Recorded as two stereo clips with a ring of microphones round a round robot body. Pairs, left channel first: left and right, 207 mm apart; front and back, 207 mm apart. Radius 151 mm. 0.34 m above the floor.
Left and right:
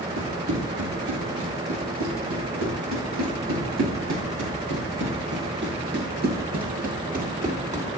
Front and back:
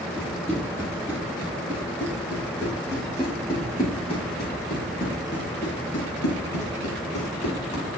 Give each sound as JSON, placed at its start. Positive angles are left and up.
{"t": 0.2, "sound": "running footsteps", "azimuth_deg": -100, "distance_m": 6.5}